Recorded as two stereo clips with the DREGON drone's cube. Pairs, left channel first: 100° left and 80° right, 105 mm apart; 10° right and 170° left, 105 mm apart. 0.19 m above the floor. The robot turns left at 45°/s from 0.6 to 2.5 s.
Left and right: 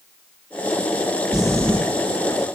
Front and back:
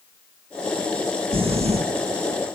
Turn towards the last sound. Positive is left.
turn(degrees=145)